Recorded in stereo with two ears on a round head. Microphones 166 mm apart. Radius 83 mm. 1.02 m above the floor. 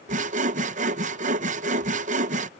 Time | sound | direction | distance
0.1 | sawing | 40° right (ahead or behind) | ?